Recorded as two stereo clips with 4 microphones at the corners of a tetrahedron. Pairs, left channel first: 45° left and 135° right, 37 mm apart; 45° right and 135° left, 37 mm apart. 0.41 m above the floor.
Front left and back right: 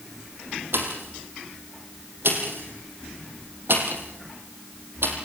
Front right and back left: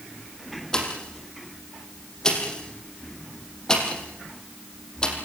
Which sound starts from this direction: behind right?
A pop, at 0.7 s.